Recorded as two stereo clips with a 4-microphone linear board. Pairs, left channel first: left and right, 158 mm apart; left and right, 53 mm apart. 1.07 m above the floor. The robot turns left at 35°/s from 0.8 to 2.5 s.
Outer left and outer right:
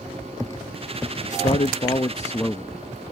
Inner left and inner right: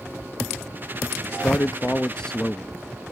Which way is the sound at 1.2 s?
55° left.